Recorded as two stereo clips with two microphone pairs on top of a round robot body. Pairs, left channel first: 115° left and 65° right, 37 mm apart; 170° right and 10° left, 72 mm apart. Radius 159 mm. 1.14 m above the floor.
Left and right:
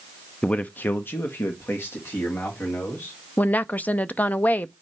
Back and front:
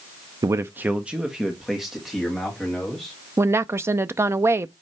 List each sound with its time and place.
0.4 s a man speaking: 50° left, 0.5 m; by 3.1 s 100° left, 3 m
3.4 s a woman speaking: 65° left, 0.5 m